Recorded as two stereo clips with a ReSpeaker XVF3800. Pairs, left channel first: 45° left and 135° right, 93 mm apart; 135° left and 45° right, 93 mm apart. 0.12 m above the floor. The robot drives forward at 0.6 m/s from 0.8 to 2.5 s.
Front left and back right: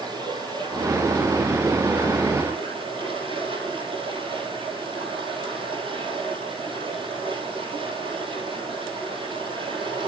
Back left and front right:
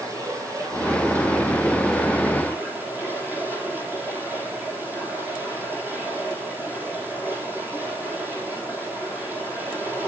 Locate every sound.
0.0 s running water: 100° right, 3.5 m; by 10.1 s 115° right, 3.5 m